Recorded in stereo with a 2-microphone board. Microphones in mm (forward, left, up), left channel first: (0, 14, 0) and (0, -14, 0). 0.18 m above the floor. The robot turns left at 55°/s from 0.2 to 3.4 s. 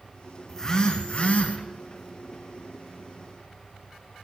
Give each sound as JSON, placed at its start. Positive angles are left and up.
{"t": 0.5, "sound": "a phone buzzing", "azimuth_deg": 165, "distance_m": 2.0}